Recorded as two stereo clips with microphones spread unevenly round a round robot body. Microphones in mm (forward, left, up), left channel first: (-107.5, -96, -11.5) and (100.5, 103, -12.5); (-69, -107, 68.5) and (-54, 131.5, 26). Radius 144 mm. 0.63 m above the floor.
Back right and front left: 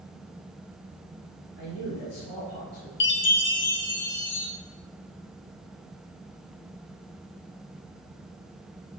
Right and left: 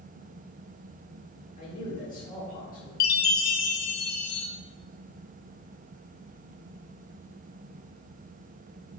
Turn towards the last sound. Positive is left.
turn(degrees=-85)